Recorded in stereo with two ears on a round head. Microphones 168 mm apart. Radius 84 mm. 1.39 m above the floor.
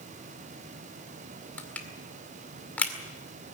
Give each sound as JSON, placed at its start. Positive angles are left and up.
{"t": 1.6, "sound": "crushing", "side_deg": 10, "distance_m": 2.0}